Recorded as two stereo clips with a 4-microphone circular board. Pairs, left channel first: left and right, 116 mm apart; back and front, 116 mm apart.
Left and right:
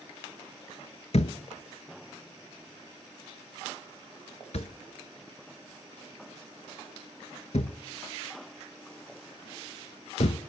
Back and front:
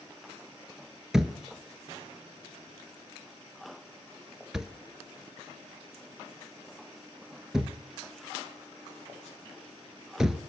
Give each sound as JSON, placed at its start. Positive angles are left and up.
{"t": 1.1, "sound": "a thud", "azimuth_deg": 85, "distance_m": 0.7}